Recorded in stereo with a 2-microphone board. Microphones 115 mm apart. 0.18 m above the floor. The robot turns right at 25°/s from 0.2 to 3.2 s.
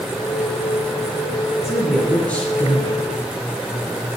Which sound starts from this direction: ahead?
A man speaking, at 1.6 s.